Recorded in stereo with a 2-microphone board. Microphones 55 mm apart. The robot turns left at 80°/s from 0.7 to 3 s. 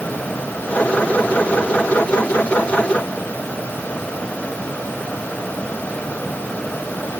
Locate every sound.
Only background noise.